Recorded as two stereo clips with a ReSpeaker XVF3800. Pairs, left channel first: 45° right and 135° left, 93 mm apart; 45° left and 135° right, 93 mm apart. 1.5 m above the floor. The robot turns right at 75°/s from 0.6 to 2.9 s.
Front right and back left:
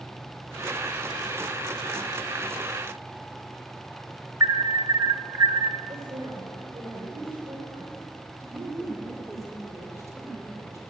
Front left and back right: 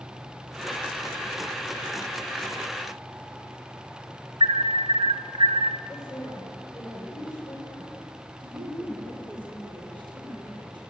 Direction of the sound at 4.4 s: 170° right.